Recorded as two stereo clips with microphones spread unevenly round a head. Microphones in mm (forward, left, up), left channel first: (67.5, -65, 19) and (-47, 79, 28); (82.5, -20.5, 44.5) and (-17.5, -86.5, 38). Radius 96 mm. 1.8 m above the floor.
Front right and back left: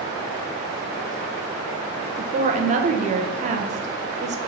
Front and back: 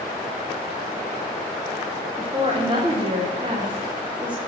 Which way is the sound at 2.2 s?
160° left.